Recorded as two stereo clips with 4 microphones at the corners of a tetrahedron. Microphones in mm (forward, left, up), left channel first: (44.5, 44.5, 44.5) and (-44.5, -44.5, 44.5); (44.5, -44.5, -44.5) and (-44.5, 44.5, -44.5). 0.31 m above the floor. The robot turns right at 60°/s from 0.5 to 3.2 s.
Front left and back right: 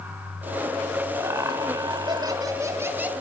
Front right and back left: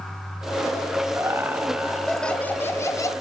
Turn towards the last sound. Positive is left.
turn(degrees=-65)